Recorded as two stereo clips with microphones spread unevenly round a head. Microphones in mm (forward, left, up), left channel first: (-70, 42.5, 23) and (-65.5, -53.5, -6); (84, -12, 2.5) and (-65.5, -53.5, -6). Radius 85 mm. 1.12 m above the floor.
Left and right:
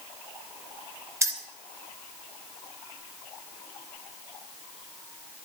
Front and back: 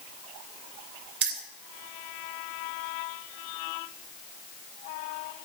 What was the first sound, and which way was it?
Keys jangling, 150° right.